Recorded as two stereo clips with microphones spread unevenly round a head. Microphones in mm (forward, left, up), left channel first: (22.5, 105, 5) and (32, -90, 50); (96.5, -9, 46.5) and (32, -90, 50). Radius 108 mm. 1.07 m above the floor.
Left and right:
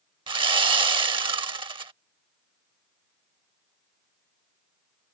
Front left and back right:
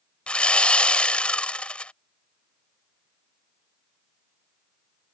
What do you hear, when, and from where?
0.3 s sawing: 30° right